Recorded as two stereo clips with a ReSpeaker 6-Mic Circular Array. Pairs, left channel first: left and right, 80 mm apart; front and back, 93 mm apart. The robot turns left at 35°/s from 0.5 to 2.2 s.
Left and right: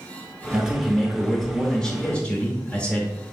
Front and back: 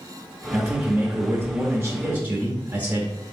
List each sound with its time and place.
0.5 s a man speaking: 155° right, 0.8 m; by 3.3 s 145° left, 0.8 m